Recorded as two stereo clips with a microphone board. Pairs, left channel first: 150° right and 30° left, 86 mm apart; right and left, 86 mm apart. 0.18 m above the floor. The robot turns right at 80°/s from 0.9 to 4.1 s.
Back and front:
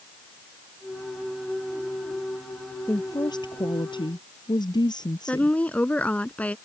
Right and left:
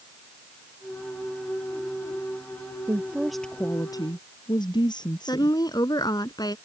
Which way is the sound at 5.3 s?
80° right.